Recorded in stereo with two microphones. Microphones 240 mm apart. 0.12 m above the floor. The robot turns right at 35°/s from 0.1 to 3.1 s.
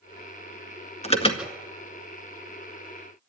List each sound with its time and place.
1.0 s an alarm: 25° left (ahead or behind), 1.9 m